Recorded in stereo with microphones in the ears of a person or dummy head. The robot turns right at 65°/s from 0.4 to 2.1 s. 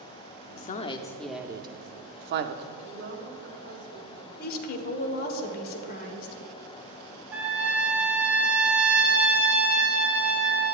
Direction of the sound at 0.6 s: 50° left (ahead or behind).